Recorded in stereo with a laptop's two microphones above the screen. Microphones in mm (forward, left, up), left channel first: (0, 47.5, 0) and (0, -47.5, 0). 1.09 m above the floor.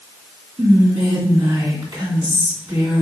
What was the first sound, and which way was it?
Whispering, 55° right (ahead or behind).